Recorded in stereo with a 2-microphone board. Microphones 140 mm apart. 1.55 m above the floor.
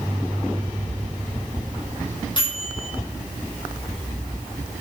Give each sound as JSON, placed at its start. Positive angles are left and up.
{"t": 2.4, "sound": "a microwave", "side_deg": 35, "distance_m": 6.0}